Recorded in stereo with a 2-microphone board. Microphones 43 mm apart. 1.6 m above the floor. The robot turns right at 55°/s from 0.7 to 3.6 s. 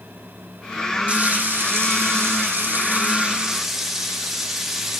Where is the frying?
145° right, 1.9 m; by 5.0 s 5° right, 1.9 m.